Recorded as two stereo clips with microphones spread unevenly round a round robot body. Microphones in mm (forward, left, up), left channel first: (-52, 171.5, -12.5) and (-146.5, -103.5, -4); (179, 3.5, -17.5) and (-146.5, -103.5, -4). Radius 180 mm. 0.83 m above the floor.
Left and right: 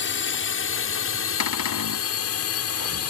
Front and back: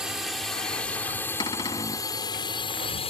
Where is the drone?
110° left; by 3.1 s 90° left.